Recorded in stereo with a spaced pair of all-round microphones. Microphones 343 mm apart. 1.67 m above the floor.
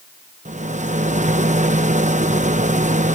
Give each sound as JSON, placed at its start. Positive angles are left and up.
{"t": 0.5, "sound": "a rattle", "side_deg": -20}